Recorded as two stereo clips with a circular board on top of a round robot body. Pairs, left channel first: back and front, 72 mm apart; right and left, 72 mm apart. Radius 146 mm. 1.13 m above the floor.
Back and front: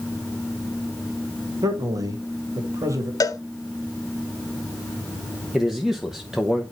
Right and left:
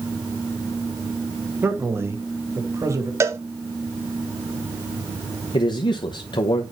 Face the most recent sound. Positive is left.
turn(degrees=-85)